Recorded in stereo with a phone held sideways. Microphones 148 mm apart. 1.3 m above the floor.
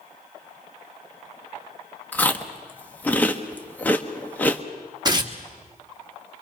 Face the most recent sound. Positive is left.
turn(degrees=-30)  # may be behind; listen again after turning